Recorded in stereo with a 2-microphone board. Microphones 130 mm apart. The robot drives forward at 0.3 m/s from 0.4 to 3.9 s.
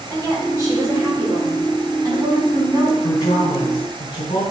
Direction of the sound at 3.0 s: 40° left (ahead or behind).